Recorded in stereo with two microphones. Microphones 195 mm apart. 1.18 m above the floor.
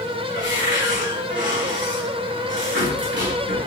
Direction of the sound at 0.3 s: 75° right (ahead or behind).